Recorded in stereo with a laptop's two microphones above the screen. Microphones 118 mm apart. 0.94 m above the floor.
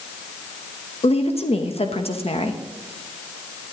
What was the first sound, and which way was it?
A woman speaking, 60° left (ahead or behind).